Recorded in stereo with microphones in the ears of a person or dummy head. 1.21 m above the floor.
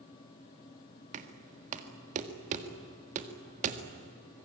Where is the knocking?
40° right (ahead or behind), 1.8 m.